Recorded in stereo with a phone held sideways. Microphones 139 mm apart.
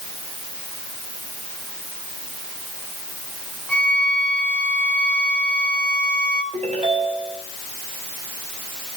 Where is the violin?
10° left (ahead or behind), 1.5 m.